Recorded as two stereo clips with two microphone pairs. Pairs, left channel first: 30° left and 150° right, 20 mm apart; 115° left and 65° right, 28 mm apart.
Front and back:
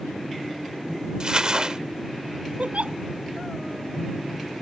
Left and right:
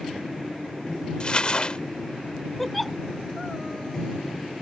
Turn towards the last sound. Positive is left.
turn(degrees=-155)